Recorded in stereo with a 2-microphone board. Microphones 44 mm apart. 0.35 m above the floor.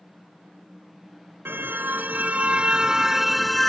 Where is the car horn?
55° right (ahead or behind); by 3.7 s 5° left (ahead or behind).